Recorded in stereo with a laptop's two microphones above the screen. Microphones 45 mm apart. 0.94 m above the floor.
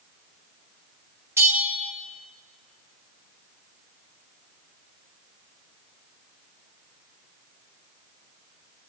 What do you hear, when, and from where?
1.4 s a bell: 70° right (ahead or behind), 1.4 m